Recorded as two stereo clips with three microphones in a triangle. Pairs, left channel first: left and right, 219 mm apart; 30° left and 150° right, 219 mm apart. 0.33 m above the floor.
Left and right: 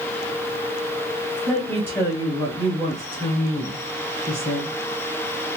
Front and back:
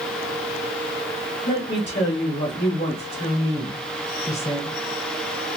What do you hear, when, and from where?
1.4 s a woman speaking: 5° left, 1.6 m; by 4.7 s 95° left, 2 m